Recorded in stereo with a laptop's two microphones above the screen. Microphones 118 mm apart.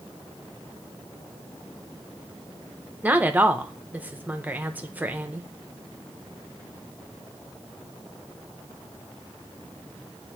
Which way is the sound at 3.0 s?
15° right (ahead or behind).